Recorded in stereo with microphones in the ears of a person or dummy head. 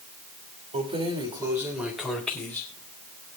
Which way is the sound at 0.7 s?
40° right (ahead or behind).